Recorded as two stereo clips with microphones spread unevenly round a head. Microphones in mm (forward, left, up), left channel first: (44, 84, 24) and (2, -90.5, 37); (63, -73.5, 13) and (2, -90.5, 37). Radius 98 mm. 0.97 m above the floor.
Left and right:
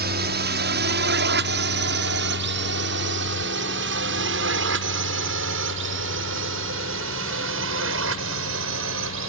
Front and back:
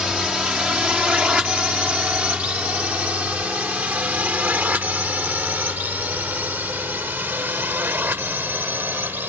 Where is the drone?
85° right; by 9.3 s 105° right.